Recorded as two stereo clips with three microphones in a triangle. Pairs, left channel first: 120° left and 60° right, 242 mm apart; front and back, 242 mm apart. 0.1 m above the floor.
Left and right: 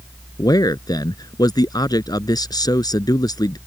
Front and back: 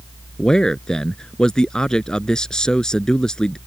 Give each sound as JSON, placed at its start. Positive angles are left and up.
{"t": 0.4, "sound": "a man speaking", "azimuth_deg": 80}